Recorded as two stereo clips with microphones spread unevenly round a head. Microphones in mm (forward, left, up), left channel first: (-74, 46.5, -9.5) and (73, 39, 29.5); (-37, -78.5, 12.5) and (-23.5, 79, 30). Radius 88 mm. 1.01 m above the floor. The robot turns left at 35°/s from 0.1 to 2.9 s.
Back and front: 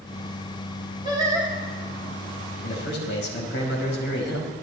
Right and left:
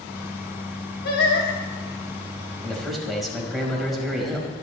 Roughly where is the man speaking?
Behind.